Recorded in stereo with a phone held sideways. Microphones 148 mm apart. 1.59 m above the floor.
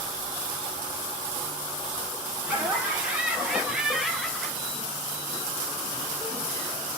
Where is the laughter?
10° right (ahead or behind), 1.2 m; by 6.9 s 10° left (ahead or behind), 1.4 m.